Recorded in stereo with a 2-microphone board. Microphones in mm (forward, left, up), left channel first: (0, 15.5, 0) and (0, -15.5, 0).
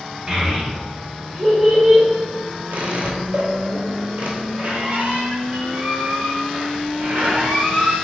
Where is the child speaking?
35° right (ahead or behind), 0.9 m; by 2.1 s 10° right (ahead or behind), 1.4 m.